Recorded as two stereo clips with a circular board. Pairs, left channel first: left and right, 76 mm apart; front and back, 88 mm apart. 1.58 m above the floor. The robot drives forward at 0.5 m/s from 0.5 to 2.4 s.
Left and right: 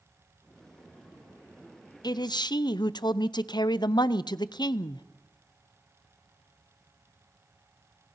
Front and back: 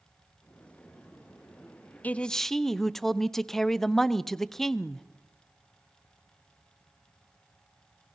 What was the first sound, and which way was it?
A man speaking, 70° left.